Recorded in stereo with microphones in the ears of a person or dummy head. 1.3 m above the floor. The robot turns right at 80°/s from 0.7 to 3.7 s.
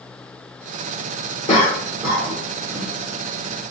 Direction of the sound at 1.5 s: 30° left (ahead or behind).